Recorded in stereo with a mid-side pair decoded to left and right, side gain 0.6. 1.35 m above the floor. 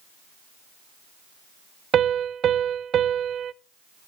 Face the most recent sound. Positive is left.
turn(degrees=-45)